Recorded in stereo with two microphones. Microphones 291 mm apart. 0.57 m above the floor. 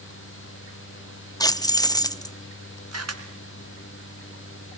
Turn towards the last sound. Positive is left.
turn(degrees=-60)  # may be behind; listen again after turning